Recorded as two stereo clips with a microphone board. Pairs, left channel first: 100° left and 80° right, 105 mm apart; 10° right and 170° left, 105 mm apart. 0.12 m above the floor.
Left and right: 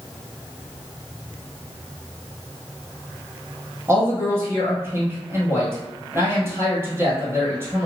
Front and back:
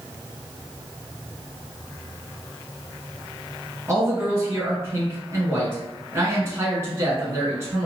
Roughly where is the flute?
No flute in this recording.